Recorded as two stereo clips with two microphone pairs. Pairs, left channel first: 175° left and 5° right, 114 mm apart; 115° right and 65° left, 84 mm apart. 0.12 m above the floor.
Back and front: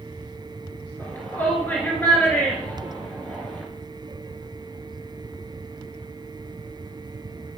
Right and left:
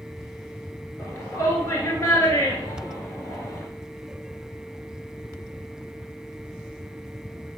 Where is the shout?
120° right, 2 m.